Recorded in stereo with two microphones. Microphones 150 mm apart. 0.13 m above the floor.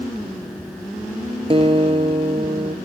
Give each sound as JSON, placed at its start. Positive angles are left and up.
{"t": 1.5, "sound": "a guitar", "side_deg": -40, "distance_m": 0.6}